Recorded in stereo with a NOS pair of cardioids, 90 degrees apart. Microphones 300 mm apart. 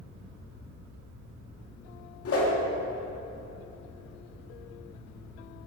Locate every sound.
2.2 s a whoosh: 50° left, 2.0 m